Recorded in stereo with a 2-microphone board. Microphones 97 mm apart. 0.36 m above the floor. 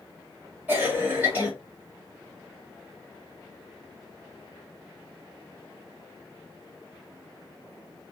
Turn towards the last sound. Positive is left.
turn(degrees=-20)  # may be behind; listen again after turning